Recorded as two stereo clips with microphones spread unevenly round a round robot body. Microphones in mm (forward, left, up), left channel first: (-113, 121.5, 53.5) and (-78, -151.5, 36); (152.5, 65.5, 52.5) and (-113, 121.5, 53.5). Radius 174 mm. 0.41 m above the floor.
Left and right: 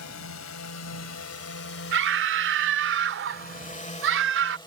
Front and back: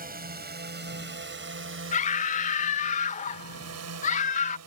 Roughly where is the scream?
Ahead right.